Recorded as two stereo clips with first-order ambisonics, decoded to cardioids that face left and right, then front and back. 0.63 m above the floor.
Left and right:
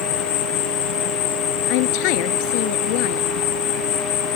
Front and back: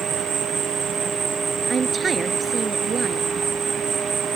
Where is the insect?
110° left.